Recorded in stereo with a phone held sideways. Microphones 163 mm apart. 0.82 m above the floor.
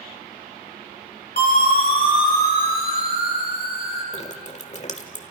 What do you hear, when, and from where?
1.4 s a siren: 70° left (ahead or behind), 5.5 m; by 4.0 s 80° left, 7 m
4.1 s dripping: 45° left (ahead or behind), 1.6 m